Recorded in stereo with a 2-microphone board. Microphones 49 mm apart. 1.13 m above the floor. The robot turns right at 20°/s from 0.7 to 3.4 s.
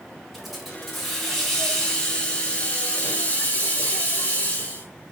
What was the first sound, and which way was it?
A hiss, straight ahead.